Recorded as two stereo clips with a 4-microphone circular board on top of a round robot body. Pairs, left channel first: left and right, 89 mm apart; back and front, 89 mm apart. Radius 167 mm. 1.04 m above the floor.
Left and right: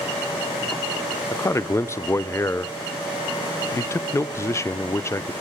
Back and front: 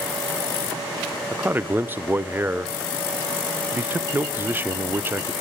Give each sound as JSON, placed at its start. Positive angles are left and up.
{"t": 1.3, "sound": "a man speaking", "azimuth_deg": 55, "distance_m": 0.7}